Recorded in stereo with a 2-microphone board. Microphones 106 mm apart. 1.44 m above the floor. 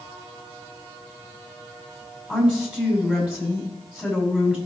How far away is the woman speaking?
About 6 m.